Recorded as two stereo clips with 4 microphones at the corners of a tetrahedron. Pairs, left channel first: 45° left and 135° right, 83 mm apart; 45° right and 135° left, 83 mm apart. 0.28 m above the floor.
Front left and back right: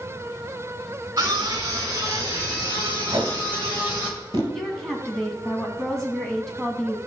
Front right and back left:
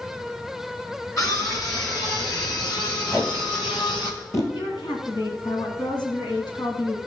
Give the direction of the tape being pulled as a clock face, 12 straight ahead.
3 o'clock.